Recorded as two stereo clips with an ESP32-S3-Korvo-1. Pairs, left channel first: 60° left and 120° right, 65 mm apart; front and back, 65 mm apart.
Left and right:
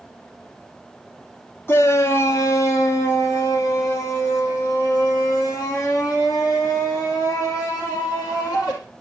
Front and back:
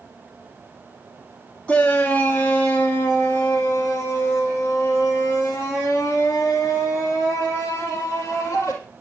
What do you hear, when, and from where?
1.7 s a shout: 55° left, 1.1 m